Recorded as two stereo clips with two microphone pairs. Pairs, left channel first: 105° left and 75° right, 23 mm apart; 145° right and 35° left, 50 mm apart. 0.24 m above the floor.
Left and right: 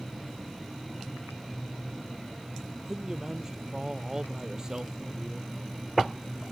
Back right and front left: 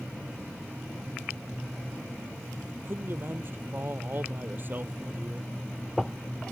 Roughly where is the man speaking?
Ahead.